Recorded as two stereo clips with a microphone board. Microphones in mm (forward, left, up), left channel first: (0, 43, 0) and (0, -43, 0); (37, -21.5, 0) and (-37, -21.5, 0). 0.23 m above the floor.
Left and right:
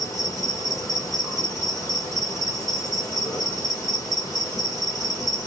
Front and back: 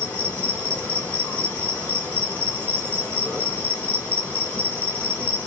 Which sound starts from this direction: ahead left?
An insect, at 0.0 s.